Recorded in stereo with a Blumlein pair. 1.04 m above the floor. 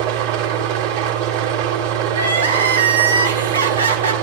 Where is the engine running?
55° right, 3 m.